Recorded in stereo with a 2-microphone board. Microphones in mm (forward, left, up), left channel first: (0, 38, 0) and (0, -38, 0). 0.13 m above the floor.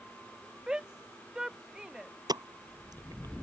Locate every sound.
0.7 s a shout: 10° right (ahead or behind)
2.3 s a pop: 65° right (ahead or behind)